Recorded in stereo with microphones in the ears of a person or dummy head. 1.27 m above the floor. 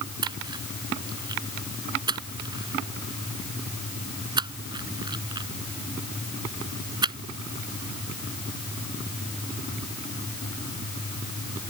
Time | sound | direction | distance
0.2 | a splash | 25° right (ahead or behind) | ?